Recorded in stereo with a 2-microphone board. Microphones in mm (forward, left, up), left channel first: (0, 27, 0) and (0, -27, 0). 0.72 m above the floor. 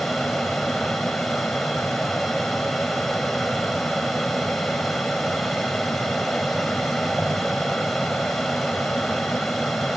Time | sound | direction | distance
0.0 | an aircraft | centre (ahead or behind) | ?